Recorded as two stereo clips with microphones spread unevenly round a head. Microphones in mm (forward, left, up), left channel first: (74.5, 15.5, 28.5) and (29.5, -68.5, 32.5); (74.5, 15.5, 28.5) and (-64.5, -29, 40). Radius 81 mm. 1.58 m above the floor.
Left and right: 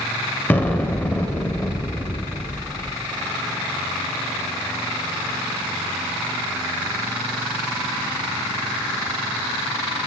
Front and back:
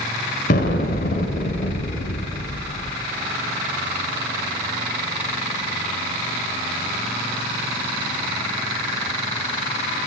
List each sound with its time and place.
0.5 s an explosion: 10° right, 0.7 m